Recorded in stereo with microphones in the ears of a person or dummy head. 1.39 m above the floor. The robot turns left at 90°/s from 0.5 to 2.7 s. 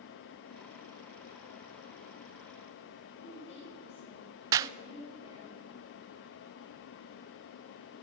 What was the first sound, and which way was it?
A woman speaking, 25° left (ahead or behind).